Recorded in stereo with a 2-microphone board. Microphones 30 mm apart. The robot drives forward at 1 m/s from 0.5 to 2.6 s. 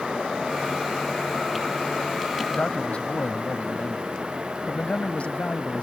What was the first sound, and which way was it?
A man speaking, 40° left (ahead or behind).